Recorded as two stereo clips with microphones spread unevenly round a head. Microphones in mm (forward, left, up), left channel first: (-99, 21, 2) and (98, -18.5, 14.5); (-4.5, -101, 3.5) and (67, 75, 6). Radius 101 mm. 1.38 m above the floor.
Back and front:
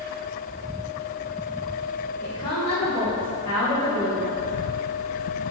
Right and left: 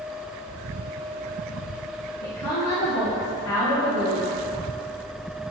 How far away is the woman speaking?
About 1.2 m.